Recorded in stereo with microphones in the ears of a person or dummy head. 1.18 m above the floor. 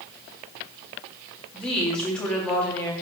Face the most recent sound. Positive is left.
turn(degrees=5)  # may be behind; listen again after turning